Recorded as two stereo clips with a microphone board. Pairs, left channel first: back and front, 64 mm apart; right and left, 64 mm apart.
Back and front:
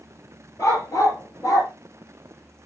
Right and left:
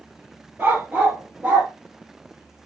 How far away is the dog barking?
About 4.5 m.